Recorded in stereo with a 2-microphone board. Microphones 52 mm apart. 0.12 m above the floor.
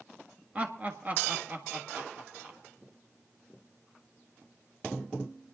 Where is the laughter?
25° right (ahead or behind), 1.4 m; by 2.6 s 35° right (ahead or behind), 2.5 m.